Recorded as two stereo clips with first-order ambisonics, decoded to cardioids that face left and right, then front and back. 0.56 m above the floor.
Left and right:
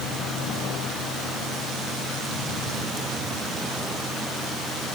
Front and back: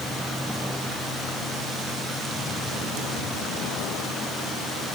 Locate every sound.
Only background noise.